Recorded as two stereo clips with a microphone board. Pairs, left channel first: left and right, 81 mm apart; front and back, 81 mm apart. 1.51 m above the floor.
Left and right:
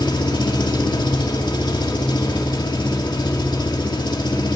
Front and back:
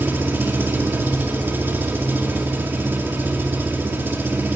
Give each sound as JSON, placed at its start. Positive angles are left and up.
{"t": 0.0, "sound": "an engine running", "azimuth_deg": 115, "distance_m": 2.0}